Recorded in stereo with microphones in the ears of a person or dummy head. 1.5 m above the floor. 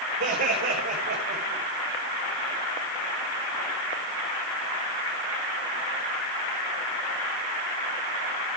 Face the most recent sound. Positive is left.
turn(degrees=-55)  # may be behind; listen again after turning